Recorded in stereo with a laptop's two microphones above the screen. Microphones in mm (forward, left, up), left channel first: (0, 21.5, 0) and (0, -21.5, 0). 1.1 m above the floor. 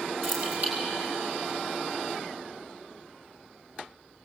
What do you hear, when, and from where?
0.2 s keys jangling: 55° right (ahead or behind), 7.5 m